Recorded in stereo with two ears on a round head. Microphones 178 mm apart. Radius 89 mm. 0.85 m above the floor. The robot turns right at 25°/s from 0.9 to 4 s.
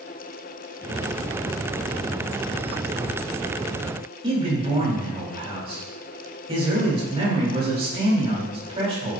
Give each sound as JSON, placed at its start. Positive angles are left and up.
{"t": 4.2, "sound": "a man speaking", "side_deg": -30, "distance_m": 3.5}